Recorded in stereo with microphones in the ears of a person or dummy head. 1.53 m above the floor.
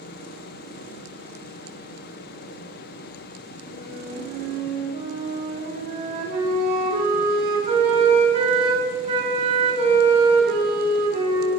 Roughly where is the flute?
Right.